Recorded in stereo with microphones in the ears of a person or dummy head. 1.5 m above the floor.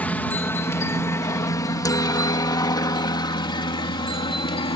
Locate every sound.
0.0 s a helicopter: 5° left (ahead or behind); by 4.8 s 25° left (ahead or behind)